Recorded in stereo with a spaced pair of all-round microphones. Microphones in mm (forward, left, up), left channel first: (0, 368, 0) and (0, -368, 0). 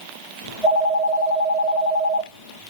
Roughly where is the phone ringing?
Left.